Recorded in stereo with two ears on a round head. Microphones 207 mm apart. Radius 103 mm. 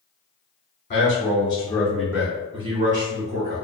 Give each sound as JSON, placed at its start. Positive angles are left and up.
{"t": 0.9, "sound": "a man speaking", "side_deg": 35, "distance_m": 1.0}